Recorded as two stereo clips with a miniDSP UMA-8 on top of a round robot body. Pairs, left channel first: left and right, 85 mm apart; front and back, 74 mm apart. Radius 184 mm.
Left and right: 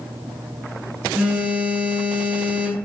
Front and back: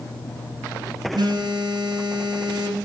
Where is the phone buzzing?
165° right, 5.5 m.